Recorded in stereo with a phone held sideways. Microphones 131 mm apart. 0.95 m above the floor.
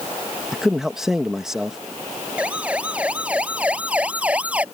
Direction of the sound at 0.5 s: 5° right (ahead or behind).